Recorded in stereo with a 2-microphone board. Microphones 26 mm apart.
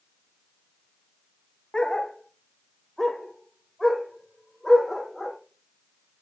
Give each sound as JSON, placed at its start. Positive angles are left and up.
{"t": 1.7, "sound": "a dog barking", "side_deg": 35, "distance_m": 0.8}